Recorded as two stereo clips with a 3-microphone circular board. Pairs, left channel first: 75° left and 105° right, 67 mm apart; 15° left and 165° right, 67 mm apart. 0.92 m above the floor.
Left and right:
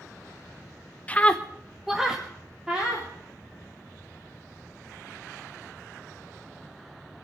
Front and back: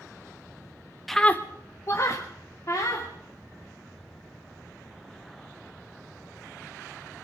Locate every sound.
1.1 s a scream: 100° left, 0.8 m; by 3.1 s 30° right, 3 m